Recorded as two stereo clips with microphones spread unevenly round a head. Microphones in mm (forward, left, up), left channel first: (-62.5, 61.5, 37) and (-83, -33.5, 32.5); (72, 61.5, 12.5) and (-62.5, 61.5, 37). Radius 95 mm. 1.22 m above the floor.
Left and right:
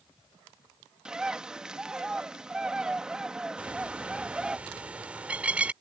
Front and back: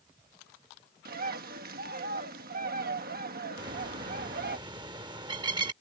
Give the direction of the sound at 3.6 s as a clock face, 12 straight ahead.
6 o'clock.